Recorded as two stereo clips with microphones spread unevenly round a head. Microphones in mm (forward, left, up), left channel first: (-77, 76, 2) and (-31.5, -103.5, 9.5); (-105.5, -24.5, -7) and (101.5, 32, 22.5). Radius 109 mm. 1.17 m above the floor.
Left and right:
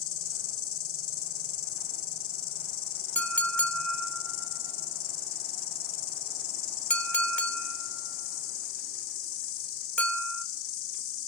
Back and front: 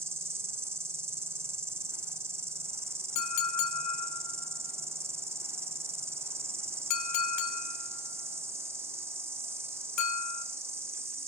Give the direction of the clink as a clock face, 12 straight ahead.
6 o'clock.